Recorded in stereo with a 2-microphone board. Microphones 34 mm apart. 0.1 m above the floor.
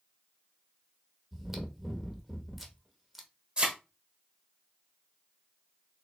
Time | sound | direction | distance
1.3 | chewing | 10° right (ahead or behind) | 1.0 m
3.6 | a thud | 35° right (ahead or behind) | 1.4 m